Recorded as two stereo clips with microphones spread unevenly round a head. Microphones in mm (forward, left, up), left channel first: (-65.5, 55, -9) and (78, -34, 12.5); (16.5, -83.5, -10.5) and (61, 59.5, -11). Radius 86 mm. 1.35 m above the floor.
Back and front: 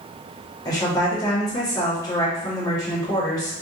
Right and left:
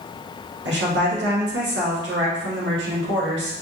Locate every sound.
0.7 s a woman speaking: 80° left, 1.5 m